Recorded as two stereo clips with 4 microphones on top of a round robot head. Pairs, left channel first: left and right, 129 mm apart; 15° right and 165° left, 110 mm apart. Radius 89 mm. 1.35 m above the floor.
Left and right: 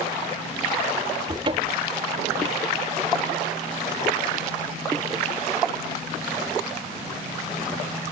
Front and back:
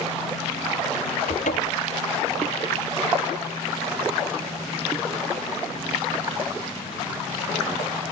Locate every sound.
1.3 s a cupboard door: 30° right